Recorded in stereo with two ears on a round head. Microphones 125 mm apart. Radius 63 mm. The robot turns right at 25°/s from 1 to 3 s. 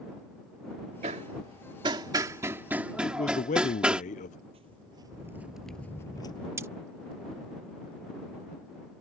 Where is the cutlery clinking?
20° right (ahead or behind).